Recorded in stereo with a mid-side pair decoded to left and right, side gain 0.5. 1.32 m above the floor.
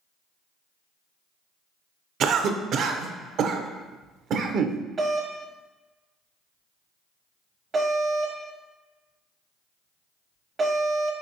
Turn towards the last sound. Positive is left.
turn(degrees=-40)